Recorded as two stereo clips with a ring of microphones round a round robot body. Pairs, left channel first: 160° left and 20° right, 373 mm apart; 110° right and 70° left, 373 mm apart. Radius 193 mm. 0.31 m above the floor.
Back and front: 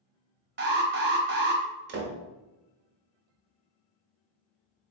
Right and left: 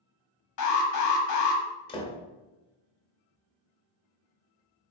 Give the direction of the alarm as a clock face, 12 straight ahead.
3 o'clock.